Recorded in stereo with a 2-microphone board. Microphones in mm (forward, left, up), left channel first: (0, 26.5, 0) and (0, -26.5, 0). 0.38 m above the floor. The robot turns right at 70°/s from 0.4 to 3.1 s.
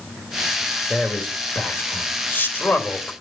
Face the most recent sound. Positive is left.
turn(degrees=15)  # may be behind; listen again after turning